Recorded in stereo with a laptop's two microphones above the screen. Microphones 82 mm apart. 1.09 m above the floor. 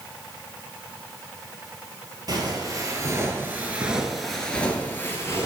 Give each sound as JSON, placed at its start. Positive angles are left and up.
{"t": 2.3, "sound": "footsteps", "side_deg": -50, "distance_m": 1.6}